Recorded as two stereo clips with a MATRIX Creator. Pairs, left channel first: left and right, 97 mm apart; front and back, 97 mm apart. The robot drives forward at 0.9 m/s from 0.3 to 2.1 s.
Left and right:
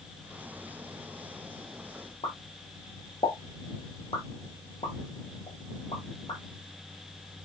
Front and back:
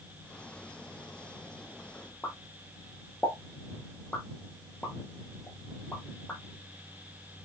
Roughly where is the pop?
Left.